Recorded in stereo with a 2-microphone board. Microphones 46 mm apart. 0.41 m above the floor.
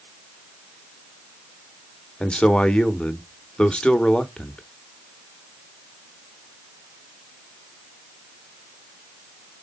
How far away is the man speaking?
About 1.0 m.